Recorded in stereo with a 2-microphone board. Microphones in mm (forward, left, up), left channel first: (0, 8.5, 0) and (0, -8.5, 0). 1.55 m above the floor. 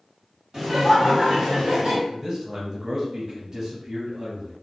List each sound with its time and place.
0.5 s laughter: 45° right (ahead or behind), 1.5 m; by 2.0 s 80° right, 1.2 m
2.1 s a man speaking: 25° right (ahead or behind), 0.7 m